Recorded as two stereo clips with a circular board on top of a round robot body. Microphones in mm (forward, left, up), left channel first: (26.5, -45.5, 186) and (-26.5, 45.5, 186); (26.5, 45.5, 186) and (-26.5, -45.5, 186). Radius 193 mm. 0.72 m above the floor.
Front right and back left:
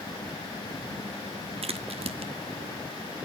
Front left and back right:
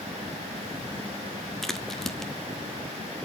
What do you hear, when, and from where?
1.6 s a crack: 145° left, 1.0 m